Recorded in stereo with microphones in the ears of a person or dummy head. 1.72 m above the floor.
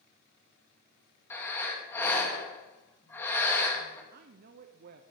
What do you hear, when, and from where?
1.3 s breathing: 10° left (ahead or behind), 2 m
4.1 s a woman speaking: 50° right (ahead or behind), 0.8 m